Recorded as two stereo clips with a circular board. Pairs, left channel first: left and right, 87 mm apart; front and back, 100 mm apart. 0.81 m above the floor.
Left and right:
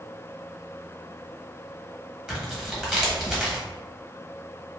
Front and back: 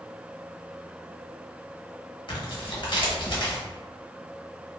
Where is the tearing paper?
10° right, 1.1 m.